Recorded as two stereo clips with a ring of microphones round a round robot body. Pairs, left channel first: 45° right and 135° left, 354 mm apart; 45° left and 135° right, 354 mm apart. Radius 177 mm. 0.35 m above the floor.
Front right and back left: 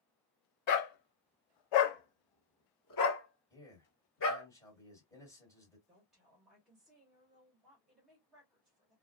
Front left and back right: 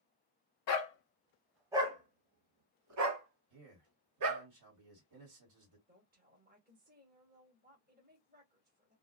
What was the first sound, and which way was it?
A dog barking, straight ahead.